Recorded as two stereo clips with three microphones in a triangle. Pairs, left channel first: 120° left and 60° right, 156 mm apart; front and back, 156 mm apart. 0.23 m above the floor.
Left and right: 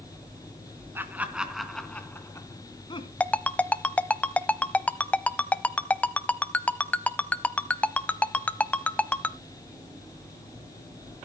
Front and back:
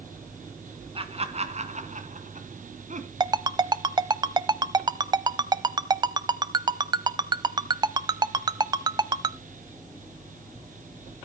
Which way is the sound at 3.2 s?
170° right.